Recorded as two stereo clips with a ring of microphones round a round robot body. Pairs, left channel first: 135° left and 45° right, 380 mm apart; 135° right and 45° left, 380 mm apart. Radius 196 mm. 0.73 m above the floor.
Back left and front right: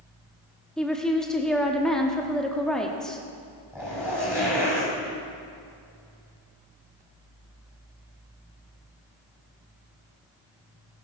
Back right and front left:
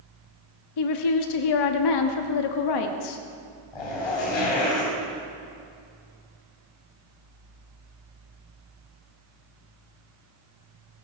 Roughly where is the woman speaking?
Behind right.